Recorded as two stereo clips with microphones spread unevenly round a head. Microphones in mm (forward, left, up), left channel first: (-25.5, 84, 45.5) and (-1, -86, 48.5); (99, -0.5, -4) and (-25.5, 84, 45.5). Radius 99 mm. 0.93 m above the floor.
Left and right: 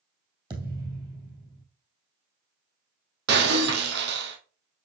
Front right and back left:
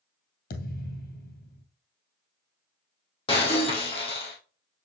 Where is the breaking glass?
105° right, 2 m.